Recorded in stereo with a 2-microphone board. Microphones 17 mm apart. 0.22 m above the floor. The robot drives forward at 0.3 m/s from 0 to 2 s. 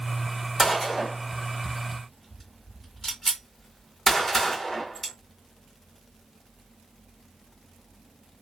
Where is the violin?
I don't hear a violin.